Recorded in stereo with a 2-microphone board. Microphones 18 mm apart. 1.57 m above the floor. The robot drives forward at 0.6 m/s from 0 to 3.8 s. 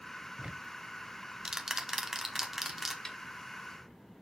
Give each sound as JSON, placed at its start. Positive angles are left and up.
{"t": 0.4, "sound": "ticking", "side_deg": -55, "distance_m": 0.6}
{"t": 3.0, "sound": "a snare drum", "side_deg": 25, "distance_m": 1.4}